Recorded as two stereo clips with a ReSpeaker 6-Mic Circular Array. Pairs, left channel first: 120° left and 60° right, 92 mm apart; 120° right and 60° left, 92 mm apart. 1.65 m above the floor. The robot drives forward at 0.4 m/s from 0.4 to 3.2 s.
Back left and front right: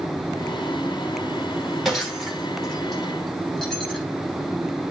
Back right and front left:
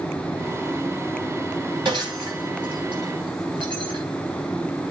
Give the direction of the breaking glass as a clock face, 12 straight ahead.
11 o'clock.